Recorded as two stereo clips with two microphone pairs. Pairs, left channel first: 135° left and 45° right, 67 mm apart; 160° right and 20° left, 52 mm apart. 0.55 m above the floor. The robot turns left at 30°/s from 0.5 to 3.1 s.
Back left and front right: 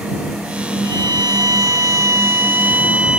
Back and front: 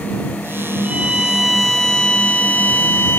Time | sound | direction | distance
0.8 | a violin | 50° right | ?